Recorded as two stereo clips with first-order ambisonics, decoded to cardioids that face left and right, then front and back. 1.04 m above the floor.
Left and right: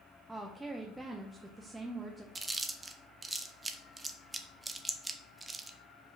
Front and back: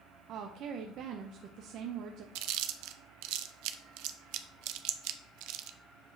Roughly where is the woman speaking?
Behind.